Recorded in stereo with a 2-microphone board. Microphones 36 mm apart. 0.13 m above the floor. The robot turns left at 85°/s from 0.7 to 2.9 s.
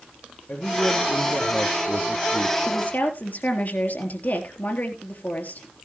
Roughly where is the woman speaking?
Left.